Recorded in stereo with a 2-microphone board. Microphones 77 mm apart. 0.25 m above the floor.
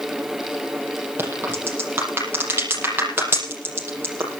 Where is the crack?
30° right (ahead or behind), 7 m.